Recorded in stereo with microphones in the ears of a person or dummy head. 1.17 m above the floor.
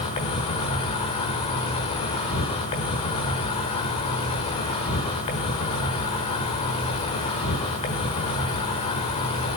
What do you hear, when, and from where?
0.0 s an insect: 30° left (ahead or behind), 1.1 m